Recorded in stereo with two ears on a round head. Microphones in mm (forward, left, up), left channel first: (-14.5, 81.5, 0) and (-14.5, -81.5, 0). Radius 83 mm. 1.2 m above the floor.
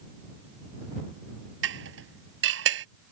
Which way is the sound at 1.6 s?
80° right.